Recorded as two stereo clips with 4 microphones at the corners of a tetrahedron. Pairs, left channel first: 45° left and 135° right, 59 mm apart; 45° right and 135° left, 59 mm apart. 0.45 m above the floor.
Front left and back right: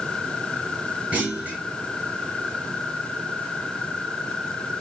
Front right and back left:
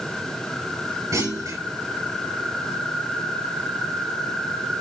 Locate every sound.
1.1 s a clunk: 160° left, 7 m